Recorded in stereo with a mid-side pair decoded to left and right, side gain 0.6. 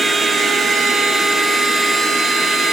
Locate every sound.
0.0 s a machine running: 25° right, 7 m